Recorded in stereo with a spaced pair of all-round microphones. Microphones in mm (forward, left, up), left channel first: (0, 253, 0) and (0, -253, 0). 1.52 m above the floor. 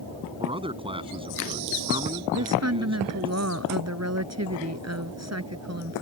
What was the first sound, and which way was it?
A man speaking, 10° right (ahead or behind).